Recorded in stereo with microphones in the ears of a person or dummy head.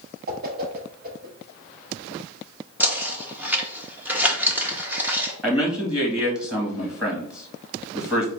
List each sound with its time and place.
0.3 s a whoosh: 50° right (ahead or behind), 1.2 m
2.8 s knocking: 5° right (ahead or behind), 0.9 m
5.4 s a man speaking: centre (ahead or behind), 1.9 m